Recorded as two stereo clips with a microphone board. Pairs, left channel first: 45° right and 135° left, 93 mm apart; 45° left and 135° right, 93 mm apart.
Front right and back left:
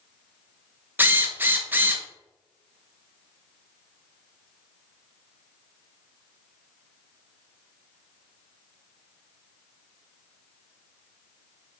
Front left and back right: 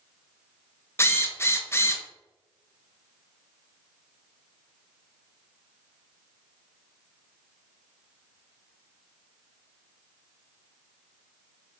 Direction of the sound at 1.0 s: 85° left.